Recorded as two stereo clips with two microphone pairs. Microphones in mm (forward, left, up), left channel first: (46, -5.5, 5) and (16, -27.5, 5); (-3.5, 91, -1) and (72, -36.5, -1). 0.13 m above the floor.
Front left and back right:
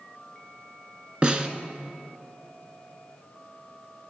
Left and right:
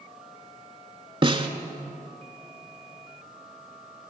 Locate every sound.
1.2 s a snare drum: 90° right, 0.7 m